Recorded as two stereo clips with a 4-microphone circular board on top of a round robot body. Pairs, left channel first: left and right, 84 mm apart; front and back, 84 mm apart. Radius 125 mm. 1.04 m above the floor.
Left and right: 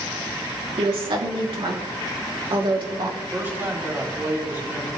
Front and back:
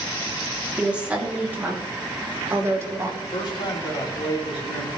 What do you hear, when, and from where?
0.8 s a woman speaking: 105° right, 3 m; by 3.1 s 120° right, 4 m
3.2 s a man speaking: 25° right, 4.5 m